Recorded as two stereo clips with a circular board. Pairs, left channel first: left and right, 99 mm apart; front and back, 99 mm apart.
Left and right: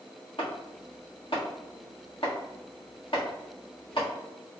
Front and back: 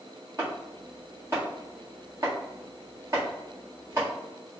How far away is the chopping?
About 1.5 m.